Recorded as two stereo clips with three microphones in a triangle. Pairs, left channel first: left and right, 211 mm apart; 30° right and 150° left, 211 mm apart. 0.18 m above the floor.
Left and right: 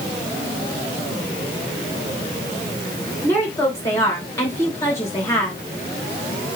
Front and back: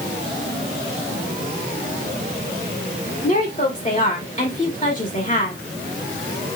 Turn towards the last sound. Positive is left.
turn(degrees=15)